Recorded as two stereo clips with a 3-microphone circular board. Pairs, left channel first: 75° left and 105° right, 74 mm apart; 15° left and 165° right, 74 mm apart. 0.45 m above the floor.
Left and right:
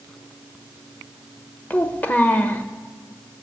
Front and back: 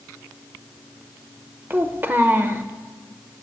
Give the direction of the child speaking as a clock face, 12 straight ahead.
7 o'clock.